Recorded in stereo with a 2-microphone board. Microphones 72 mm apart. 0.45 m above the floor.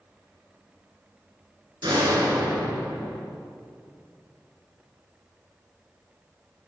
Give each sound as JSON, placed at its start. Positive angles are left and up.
{"t": 1.8, "sound": "a door slam", "side_deg": -70, "distance_m": 3.5}